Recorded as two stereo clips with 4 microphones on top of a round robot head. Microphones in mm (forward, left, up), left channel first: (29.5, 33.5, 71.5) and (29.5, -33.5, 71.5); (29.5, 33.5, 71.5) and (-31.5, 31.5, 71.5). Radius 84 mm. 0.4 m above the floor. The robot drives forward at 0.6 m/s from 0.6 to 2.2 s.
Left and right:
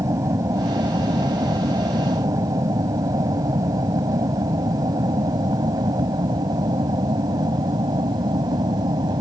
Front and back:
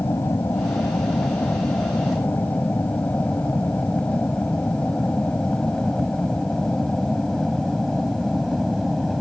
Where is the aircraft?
55° right; by 9.2 s 85° right.